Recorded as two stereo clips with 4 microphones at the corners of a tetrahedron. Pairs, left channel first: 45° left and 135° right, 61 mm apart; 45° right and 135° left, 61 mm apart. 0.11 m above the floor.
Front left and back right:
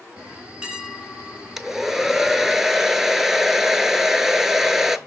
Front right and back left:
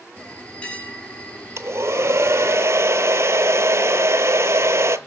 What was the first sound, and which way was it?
A bell, 80° right.